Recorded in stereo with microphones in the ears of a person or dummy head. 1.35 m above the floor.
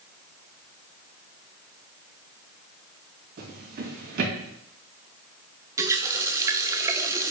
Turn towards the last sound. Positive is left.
turn(degrees=-20)  # may be behind; listen again after turning